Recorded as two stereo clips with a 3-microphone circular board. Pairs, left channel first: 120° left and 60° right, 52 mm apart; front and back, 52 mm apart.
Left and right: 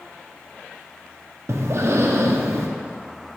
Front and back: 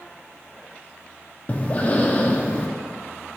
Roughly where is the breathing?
Ahead right.